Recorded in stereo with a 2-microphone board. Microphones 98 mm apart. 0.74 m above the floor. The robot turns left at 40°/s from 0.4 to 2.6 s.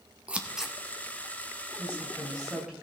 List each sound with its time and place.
0.3 s scissors: 10° right (ahead or behind), 0.9 m; by 0.8 s centre (ahead or behind), 0.9 m
1.8 s a woman speaking: 25° left, 3.5 m; by 2.7 s 10° right, 3.5 m